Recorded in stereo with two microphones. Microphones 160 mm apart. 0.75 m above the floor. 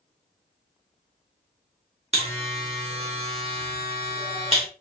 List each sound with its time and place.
2.1 s a buzzer: 40° right (ahead or behind), 1.2 m